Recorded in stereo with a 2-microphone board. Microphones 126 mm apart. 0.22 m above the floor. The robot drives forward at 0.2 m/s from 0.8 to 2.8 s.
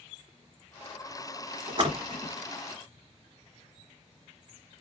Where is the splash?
40° right (ahead or behind), 1.3 m.